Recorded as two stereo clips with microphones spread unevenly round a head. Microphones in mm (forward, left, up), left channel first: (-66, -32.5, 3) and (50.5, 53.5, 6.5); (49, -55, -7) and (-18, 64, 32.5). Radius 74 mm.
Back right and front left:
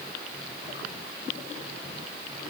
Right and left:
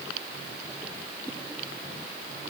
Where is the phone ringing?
I don't hear a phone ringing.